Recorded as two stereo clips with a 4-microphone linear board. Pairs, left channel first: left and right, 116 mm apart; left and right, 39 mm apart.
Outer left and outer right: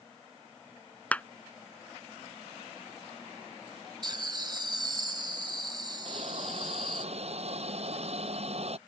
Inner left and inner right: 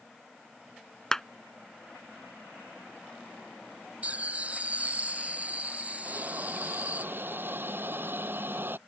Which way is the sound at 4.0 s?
40° right (ahead or behind).